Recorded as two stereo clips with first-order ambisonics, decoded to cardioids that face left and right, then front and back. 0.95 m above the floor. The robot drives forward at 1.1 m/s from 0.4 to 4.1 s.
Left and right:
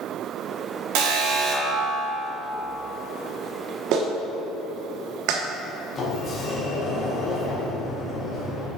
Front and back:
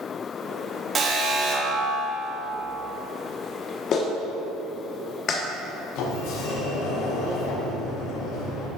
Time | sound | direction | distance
0.9 | an alarm | 105° right | 1.7 m
3.9 | a clap | 50° right | 1.3 m
6.0 | a sliding door | 20° left | 2.5 m